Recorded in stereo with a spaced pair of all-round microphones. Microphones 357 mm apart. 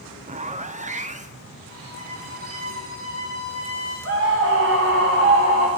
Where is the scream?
35° right (ahead or behind), 1.6 m.